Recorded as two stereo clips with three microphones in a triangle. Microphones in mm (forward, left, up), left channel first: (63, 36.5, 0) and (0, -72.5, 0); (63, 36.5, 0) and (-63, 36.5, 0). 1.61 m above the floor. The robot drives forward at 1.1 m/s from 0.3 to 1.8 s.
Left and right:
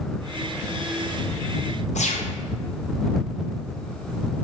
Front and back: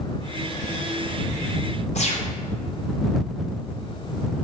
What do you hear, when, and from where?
1.9 s a gunshot: 30° left, 1.3 m